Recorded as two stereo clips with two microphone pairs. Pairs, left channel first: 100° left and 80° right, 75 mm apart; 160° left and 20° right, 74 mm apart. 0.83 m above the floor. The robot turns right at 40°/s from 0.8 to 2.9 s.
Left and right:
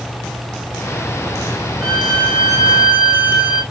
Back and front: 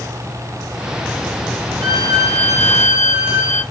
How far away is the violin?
About 3.5 m.